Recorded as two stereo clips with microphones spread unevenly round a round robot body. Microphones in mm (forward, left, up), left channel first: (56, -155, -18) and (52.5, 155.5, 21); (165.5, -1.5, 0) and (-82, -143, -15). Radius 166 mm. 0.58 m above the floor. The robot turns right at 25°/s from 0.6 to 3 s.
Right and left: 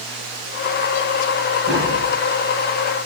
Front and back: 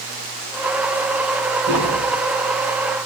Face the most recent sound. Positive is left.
turn(degrees=-175)